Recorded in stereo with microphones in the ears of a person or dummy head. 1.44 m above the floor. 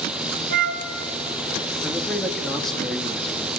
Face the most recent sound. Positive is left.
turn(degrees=5)  # may be behind; listen again after turning